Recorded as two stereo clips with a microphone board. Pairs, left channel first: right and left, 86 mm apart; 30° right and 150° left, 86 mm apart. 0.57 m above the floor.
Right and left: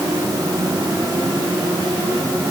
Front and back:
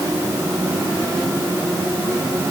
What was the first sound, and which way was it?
Only background noise.